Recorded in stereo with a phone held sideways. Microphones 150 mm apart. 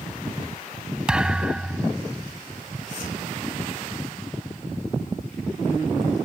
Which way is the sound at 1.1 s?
5° right (ahead or behind).